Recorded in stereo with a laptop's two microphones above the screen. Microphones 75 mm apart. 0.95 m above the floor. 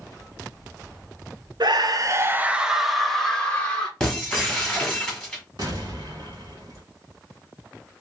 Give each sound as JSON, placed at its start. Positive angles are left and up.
{"t": 1.6, "sound": "a scream", "side_deg": -70, "distance_m": 0.6}
{"t": 4.0, "sound": "breaking glass", "side_deg": 10, "distance_m": 1.3}
{"t": 5.6, "sound": "an explosion", "side_deg": -60, "distance_m": 1.0}